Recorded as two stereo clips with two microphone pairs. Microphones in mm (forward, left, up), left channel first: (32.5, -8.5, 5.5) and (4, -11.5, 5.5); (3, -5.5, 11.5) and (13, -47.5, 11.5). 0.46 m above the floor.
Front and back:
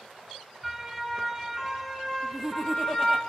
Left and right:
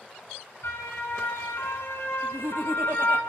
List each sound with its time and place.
0.6 s a siren: 90° left, 6.5 m; by 3.2 s 65° left, 3.5 m
2.2 s laughter: 85° right, 3.5 m